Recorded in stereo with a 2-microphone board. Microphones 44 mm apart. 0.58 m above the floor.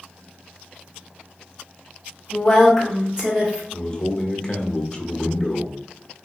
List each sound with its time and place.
2.3 s a woman speaking: 20° left (ahead or behind), 1.2 m; by 3.6 s 30° right (ahead or behind), 1.3 m
3.7 s a man speaking: 20° left (ahead or behind), 0.8 m